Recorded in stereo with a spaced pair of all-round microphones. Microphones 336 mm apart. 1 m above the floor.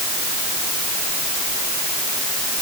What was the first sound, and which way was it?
Only background noise.